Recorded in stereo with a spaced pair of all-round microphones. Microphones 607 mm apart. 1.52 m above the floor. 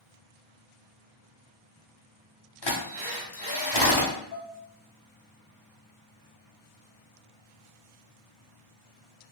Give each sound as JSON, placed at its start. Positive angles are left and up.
{"t": 2.6, "sound": "a drill", "side_deg": 40, "distance_m": 0.9}
{"t": 4.3, "sound": "dishes clattering", "side_deg": 45, "distance_m": 0.9}